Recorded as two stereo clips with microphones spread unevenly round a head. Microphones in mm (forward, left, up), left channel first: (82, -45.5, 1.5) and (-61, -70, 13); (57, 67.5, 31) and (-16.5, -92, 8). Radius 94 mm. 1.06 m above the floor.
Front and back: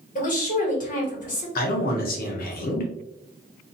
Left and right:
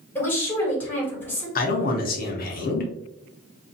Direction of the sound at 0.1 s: 15° right.